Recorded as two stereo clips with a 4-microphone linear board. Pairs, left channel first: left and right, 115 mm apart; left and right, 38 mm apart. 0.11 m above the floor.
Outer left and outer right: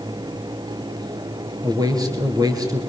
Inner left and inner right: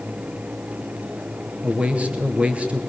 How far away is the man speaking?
About 2.5 m.